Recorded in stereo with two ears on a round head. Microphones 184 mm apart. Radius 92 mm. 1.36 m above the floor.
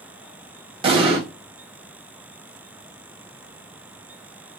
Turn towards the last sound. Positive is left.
turn(degrees=-25)  # may be behind; listen again after turning